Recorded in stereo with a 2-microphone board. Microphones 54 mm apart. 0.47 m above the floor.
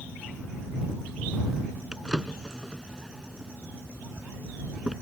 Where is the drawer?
10° right (ahead or behind).